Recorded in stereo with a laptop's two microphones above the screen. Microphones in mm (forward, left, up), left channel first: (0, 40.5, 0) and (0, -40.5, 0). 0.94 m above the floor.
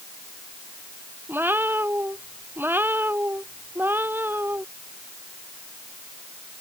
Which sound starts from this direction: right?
A cat meowing, at 1.3 s.